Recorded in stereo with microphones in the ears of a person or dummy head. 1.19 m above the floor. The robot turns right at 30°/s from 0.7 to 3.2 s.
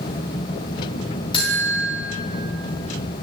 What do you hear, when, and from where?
1.3 s a buzzer: 25° left (ahead or behind), 1.8 m; by 1.9 s 40° left (ahead or behind), 1.8 m